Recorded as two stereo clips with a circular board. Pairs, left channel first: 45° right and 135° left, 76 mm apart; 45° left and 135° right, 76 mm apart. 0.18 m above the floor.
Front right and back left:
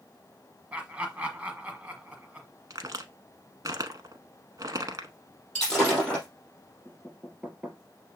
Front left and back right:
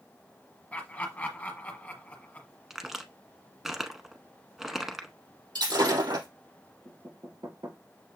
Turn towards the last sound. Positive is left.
turn(degrees=-150)